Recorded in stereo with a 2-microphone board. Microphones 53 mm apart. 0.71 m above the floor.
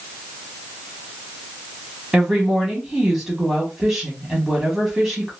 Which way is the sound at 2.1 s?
10° right (ahead or behind).